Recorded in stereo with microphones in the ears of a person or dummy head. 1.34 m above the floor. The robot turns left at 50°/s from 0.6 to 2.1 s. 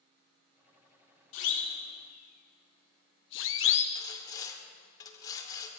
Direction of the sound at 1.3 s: 80° left.